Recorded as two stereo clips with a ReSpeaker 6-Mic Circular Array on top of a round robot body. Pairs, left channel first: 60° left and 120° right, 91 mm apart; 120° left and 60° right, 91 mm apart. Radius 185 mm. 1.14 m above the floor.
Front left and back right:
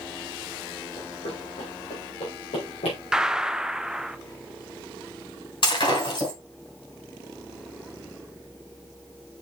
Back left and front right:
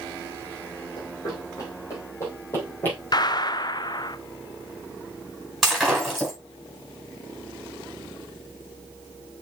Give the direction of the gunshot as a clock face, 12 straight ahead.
7 o'clock.